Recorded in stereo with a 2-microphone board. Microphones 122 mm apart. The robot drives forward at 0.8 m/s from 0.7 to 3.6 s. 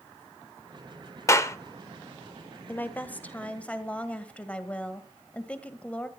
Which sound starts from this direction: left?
A clap, at 1.3 s.